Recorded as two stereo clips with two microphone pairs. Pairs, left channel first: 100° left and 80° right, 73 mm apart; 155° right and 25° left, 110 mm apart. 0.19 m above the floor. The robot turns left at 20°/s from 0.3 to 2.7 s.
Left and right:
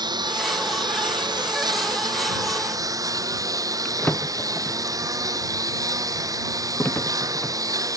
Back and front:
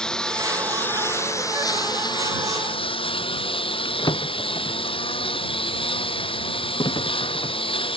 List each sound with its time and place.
0.0 s a lawn mower: 70° right; by 8.0 s 115° right
3.9 s a drawer: 160° left